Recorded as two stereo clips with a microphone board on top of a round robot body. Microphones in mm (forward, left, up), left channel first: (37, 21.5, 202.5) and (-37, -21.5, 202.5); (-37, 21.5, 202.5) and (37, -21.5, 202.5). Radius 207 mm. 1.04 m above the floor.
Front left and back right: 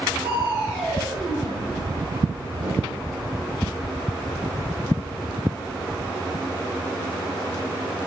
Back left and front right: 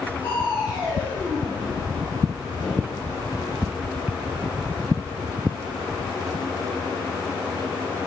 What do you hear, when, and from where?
0.2 s crushing: 165° right, 3.5 m